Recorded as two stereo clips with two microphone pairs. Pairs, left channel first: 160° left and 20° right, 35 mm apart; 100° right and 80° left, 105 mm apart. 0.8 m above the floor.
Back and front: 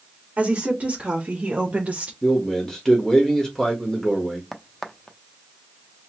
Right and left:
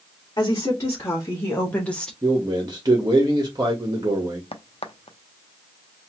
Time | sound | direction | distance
0.4 | a woman speaking | 55° right | 1.7 m
2.2 | a man speaking | 90° left | 1.3 m
4.5 | a crack | 115° right | 0.5 m